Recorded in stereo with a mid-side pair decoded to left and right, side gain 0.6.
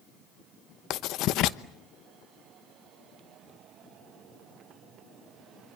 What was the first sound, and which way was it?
Writing, 65° left.